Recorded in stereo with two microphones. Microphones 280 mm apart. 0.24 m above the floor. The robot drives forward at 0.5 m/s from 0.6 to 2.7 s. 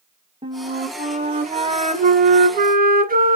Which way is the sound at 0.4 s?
15° right (ahead or behind).